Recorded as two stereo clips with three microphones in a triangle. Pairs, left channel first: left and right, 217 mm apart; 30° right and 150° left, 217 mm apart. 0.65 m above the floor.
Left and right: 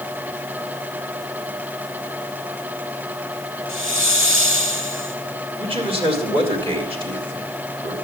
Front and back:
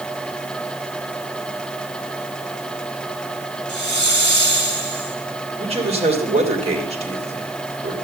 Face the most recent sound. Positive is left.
turn(degrees=-150)